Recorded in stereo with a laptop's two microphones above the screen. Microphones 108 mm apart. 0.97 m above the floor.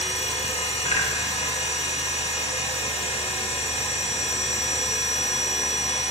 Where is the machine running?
75° left (ahead or behind), 0.9 m.